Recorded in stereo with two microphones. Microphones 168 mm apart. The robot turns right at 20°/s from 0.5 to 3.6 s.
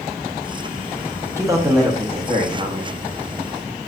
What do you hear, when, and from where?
1.4 s a man speaking: 160° right, 0.8 m; by 3.0 s 130° right, 0.8 m